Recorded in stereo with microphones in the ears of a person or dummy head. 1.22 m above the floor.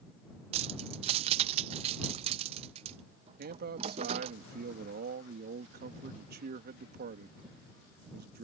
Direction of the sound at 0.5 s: 35° right (ahead or behind).